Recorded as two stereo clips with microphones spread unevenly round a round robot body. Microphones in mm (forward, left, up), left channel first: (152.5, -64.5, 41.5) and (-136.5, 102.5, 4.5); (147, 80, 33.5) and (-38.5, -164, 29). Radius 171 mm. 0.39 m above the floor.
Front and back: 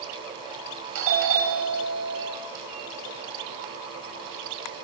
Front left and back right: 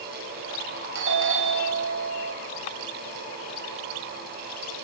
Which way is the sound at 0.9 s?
175° right.